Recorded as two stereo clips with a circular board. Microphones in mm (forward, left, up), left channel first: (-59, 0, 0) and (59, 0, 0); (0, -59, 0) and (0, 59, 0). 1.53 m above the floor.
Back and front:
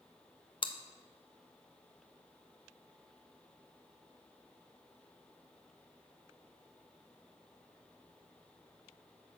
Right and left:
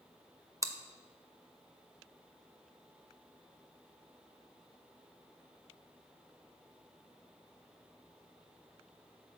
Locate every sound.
0.6 s chewing: 150° left, 0.6 m